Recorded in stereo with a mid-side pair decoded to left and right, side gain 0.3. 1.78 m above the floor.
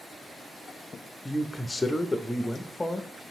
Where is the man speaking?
20° left, 0.5 m.